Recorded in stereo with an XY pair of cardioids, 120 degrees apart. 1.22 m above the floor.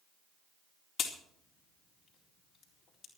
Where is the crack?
45° left, 4 m.